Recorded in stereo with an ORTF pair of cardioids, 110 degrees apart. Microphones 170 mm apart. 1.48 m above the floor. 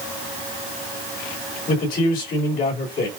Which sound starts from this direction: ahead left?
A man speaking, at 1.7 s.